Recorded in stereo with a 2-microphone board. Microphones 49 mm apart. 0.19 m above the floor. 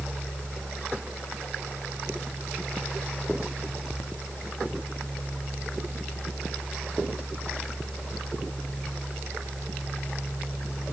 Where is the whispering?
No whispering in this recording.